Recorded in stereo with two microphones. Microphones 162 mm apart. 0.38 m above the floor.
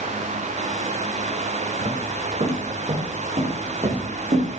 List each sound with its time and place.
1.8 s footsteps: 40° right (ahead or behind), 5.5 m; by 4.5 s 45° right (ahead or behind), 7 m